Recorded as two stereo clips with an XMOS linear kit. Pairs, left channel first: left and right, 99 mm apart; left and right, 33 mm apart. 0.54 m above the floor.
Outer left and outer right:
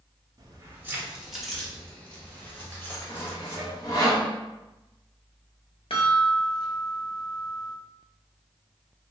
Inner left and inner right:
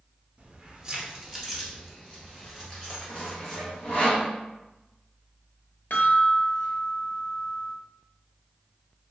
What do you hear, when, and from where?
0.4 s keys jangling: 40° right (ahead or behind), 0.7 m; by 4.1 s 25° left (ahead or behind), 2.5 m
3.1 s sawing: 35° left (ahead or behind), 1.0 m
5.9 s a chime: 65° left (ahead or behind), 0.8 m